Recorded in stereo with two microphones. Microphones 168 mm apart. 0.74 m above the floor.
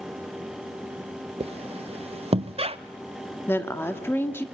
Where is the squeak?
35° right (ahead or behind), 0.5 m.